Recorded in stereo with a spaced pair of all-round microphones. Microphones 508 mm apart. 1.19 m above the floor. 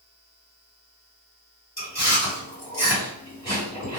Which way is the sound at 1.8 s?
30° left (ahead or behind).